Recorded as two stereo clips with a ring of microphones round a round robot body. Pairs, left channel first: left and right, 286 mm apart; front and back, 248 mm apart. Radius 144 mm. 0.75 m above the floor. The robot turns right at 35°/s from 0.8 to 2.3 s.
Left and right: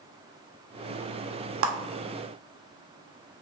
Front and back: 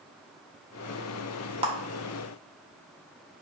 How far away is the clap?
About 0.5 m.